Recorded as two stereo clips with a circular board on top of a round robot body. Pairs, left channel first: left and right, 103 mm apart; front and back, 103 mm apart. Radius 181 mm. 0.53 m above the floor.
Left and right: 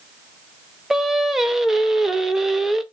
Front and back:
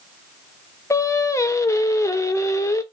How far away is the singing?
About 0.8 m.